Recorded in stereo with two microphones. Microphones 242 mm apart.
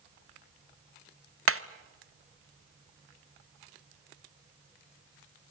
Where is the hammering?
70° right (ahead or behind), 0.6 m.